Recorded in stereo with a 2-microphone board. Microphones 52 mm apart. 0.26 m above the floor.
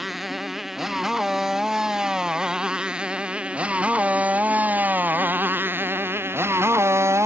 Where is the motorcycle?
5° right (ahead or behind); by 7.3 s 60° right (ahead or behind).